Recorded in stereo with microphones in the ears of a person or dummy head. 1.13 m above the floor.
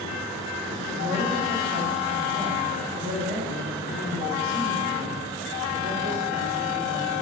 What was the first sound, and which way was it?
A woman speaking, 35° right (ahead or behind).